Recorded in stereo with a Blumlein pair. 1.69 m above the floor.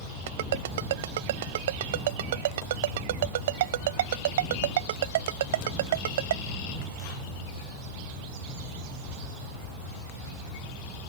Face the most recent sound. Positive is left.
turn(degrees=-55)